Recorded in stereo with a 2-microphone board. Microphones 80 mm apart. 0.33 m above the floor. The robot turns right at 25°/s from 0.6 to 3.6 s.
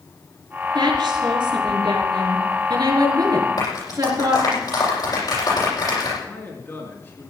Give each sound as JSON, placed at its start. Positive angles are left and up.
{"t": 0.8, "sound": "a woman speaking", "azimuth_deg": -115, "distance_m": 5.0}
{"t": 3.6, "sound": "a clap", "side_deg": 50, "distance_m": 9.5}
{"t": 6.2, "sound": "a man speaking", "side_deg": 30, "distance_m": 4.5}